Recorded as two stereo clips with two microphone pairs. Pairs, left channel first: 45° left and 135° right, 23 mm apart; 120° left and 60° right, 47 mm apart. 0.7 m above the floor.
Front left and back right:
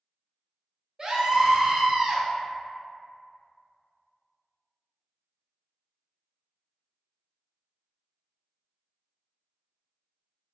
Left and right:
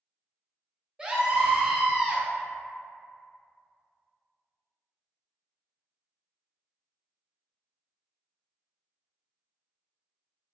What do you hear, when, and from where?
1.0 s a scream: 115° right, 0.6 m